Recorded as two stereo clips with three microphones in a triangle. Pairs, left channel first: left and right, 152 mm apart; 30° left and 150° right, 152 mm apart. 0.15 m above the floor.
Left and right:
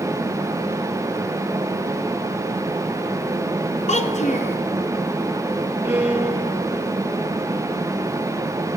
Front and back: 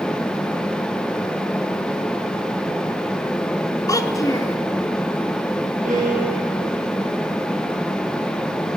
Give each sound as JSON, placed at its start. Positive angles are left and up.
{"t": 3.9, "sound": "a child speaking", "azimuth_deg": 90, "distance_m": 1.0}
{"t": 5.8, "sound": "a violin", "azimuth_deg": -165, "distance_m": 3.5}